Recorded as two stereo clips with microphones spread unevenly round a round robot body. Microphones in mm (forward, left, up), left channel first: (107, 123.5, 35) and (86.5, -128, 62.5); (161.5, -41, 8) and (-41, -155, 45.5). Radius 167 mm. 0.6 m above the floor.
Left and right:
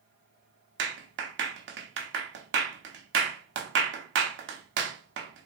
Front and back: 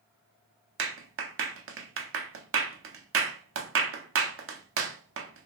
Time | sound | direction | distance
0.8 | a clap | 135° right | 0.6 m